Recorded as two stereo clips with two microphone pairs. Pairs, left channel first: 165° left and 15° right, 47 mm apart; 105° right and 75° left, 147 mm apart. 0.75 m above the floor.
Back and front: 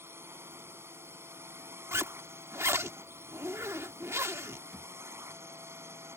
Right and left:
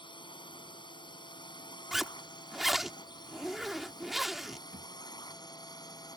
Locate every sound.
0.0 s a drone: 50° right; by 6.2 s 45° right
1.9 s a zipper: 15° right
4.7 s a thud: 80° left